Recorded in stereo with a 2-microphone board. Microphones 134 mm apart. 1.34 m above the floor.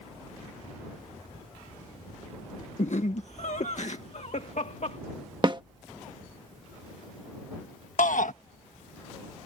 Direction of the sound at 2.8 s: 60° left (ahead or behind).